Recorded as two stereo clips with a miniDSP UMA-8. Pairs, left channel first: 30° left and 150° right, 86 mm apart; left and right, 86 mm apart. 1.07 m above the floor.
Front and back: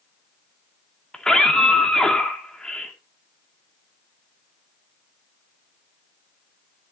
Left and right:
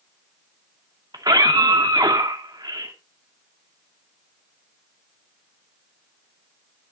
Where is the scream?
55° right, 2 m.